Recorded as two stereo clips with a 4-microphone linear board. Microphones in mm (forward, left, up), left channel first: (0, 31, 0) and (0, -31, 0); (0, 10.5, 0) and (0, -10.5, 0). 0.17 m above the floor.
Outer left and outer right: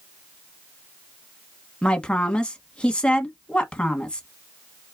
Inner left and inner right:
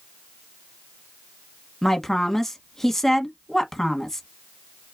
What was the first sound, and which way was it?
A woman speaking, 15° left (ahead or behind).